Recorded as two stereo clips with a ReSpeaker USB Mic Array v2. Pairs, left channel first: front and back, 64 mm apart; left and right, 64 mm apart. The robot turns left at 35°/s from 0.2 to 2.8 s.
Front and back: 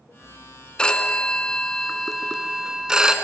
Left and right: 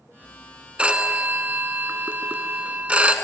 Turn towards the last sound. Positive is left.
turn(degrees=-120)